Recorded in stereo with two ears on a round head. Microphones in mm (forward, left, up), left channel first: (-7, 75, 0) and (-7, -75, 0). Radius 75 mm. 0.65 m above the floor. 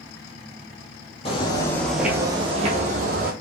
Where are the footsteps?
35° left (ahead or behind), 1.0 m; by 3.3 s 60° right (ahead or behind), 1.4 m.